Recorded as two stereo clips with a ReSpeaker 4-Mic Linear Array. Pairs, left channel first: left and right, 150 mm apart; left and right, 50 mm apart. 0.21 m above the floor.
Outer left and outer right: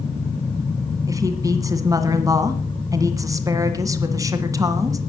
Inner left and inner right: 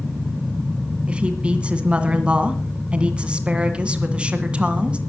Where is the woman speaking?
20° right (ahead or behind), 1.9 m.